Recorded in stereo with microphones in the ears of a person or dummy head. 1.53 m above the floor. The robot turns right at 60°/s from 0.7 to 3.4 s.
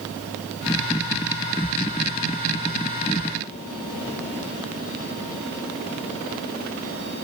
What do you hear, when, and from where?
Only background noise.